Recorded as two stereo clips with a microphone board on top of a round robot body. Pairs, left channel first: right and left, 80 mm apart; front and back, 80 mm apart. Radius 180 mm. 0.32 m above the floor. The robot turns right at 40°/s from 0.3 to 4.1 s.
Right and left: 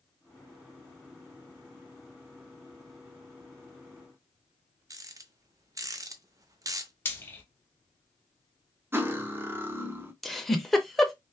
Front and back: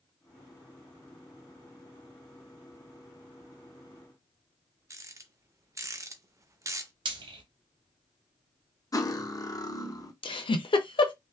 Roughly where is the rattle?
Behind left.